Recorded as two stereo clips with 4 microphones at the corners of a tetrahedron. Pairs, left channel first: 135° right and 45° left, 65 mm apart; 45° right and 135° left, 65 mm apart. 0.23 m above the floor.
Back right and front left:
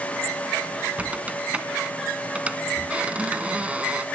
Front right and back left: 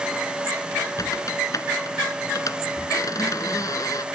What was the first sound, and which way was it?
A squeak, 25° right.